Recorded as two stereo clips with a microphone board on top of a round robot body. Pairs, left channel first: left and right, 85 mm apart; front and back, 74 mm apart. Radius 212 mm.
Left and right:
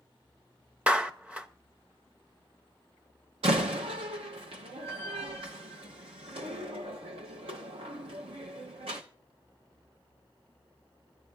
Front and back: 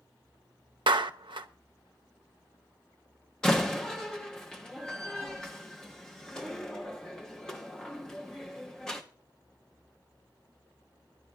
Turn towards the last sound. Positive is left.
turn(degrees=-80)